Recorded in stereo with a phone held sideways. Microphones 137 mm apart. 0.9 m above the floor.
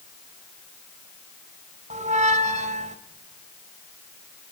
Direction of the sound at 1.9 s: 60° right (ahead or behind).